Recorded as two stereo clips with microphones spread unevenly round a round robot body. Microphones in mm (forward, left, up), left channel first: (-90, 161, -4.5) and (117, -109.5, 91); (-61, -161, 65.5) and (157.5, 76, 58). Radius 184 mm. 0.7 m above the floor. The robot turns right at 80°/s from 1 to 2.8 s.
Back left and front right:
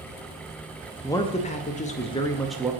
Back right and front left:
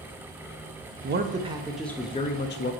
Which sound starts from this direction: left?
A man speaking, at 1.0 s.